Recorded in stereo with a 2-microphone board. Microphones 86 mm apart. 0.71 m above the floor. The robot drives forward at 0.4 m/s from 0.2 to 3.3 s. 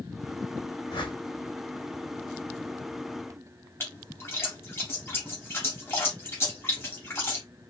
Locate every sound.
0.9 s a whoosh: 65° left (ahead or behind), 1.8 m
3.8 s a splash: 30° left (ahead or behind), 2.5 m